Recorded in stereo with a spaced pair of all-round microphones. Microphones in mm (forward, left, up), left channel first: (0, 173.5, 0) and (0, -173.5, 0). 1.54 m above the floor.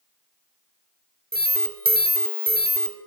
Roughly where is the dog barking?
I don't hear a dog barking.